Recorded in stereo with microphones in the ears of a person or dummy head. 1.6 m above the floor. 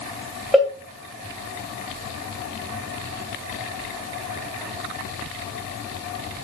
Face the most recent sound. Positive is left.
turn(degrees=5)  # may be behind; listen again after turning